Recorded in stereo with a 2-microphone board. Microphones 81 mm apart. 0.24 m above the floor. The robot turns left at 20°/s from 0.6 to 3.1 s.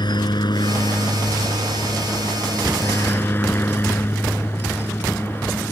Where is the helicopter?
80° left; by 5.7 s 30° left.